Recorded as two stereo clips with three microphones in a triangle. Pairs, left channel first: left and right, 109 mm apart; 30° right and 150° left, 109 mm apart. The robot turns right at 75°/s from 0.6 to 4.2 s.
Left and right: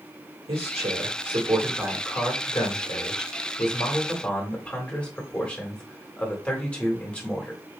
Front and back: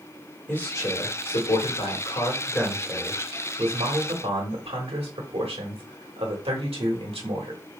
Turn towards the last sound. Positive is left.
turn(degrees=170)